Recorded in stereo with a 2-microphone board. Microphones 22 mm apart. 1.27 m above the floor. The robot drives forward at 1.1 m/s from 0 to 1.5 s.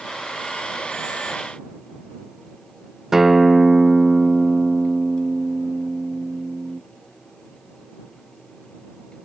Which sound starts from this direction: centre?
A guitar, at 3.1 s.